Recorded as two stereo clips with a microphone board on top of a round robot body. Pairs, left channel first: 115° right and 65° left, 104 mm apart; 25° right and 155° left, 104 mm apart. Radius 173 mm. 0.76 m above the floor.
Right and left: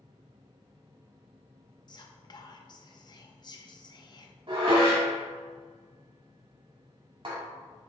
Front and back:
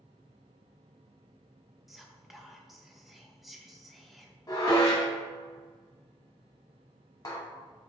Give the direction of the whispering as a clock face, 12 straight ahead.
4 o'clock.